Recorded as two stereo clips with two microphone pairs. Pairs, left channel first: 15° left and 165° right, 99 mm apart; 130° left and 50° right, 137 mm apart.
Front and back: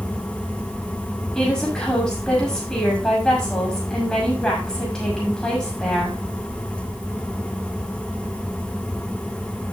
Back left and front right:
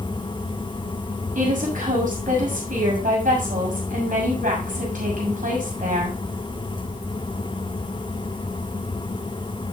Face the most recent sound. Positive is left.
turn(degrees=-65)